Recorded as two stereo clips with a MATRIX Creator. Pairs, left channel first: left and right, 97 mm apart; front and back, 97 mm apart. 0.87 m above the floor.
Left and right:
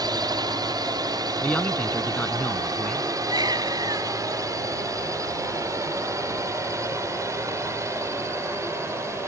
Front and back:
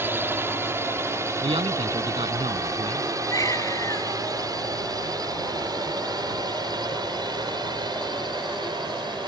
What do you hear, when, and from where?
0.0 s a drone: 120° right; by 9.3 s 150° right
1.4 s a man speaking: 165° left
3.3 s a baby crying: 50° right